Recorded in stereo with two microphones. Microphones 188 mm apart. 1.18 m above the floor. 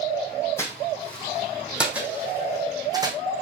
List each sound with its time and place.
0.6 s footsteps: 15° left (ahead or behind), 2 m; by 3.2 s 20° right (ahead or behind), 2.5 m